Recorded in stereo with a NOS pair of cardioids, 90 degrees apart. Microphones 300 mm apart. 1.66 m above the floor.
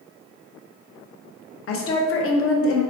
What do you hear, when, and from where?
1.7 s a woman speaking: 55° left, 0.7 m